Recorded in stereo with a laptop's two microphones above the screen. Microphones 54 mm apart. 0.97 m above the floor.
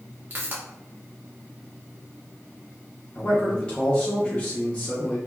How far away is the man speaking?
About 0.6 m.